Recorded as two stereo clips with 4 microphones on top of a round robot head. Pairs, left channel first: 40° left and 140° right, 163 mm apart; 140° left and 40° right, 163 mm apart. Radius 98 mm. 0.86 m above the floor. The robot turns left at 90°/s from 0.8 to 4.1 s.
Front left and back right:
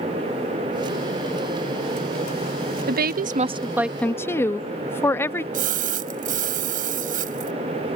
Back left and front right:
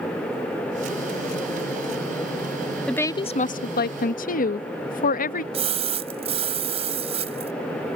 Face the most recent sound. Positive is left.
turn(degrees=-95)